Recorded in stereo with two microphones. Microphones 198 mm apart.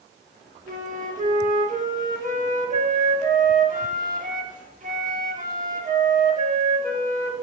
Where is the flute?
40° right (ahead or behind), 1.3 m.